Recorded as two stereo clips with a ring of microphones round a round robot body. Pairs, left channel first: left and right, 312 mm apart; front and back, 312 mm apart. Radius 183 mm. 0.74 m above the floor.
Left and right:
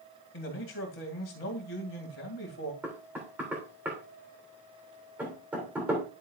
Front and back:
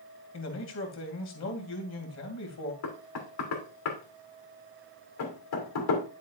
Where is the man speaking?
40° left, 2.5 m.